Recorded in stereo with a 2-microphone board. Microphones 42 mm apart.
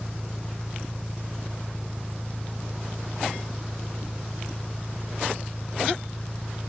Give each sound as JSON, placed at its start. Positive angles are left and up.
{"t": 0.0, "sound": "an engine running", "side_deg": 5, "distance_m": 0.7}